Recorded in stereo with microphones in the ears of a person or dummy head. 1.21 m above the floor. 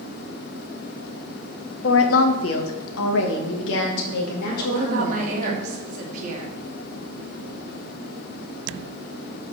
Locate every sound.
1.8 s a woman speaking: 65° left (ahead or behind), 0.9 m; by 5.6 s 60° left (ahead or behind), 3 m
4.6 s a woman speaking: 45° right (ahead or behind), 2.5 m